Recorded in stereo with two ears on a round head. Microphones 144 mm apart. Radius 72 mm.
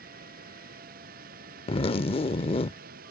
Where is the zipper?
35° left (ahead or behind).